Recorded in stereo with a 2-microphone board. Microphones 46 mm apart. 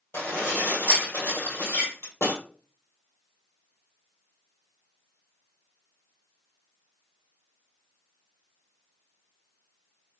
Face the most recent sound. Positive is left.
turn(degrees=60)  # may be behind; listen again after turning